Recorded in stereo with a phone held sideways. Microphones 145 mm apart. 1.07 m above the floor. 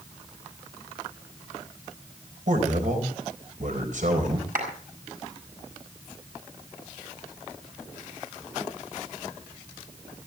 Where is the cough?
No cough in this recording.